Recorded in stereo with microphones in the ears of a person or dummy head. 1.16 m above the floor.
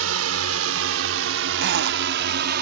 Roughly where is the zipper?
Right.